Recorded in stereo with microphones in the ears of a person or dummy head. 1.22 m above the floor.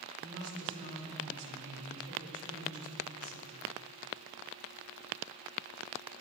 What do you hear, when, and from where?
0.2 s a woman speaking: 70° right (ahead or behind), 3.5 m